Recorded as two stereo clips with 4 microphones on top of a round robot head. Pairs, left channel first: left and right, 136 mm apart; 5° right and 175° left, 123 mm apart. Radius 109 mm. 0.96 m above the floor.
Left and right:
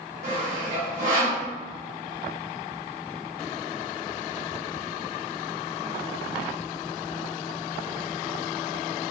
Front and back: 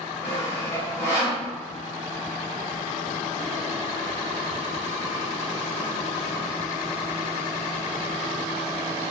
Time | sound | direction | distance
0.2 | sawing | 110° right | 1.3 m